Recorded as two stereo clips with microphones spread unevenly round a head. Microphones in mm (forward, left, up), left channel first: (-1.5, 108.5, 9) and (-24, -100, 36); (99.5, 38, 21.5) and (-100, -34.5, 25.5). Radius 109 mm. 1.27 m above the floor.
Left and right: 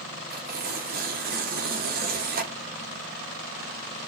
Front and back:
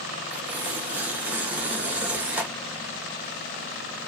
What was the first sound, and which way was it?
Tearing paper, 80° right.